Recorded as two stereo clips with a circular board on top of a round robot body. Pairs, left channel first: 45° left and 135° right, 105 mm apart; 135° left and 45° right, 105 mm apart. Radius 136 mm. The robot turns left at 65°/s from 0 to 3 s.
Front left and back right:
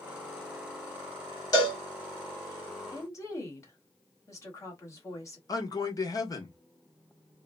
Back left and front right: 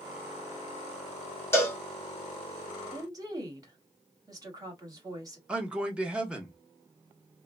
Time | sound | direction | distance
1.5 | a cowbell | 75° left | 1.6 m
2.9 | a woman speaking | straight ahead | 1.5 m
5.5 | a man speaking | 30° left | 0.9 m